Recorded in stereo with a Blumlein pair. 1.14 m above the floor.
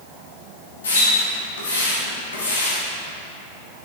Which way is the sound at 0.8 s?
65° left.